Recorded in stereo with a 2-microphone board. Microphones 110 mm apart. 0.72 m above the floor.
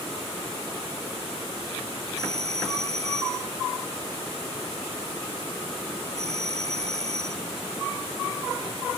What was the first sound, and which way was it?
A doorbell, 85° right.